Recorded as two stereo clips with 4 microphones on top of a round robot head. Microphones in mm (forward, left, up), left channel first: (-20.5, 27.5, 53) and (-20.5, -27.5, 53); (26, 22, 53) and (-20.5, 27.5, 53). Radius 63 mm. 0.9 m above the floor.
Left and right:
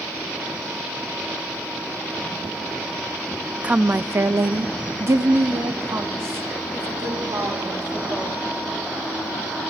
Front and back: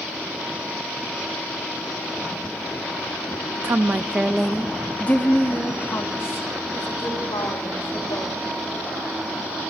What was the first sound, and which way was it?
A woman speaking, 155° right.